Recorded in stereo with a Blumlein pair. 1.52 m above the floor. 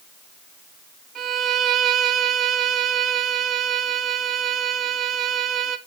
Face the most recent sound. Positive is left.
turn(degrees=-30)